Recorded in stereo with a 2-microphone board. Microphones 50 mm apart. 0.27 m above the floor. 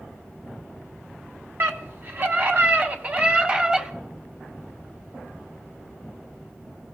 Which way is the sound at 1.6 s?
55° right (ahead or behind).